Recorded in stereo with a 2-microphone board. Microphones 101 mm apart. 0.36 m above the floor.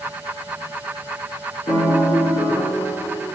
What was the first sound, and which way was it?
A piano, 75° left (ahead or behind).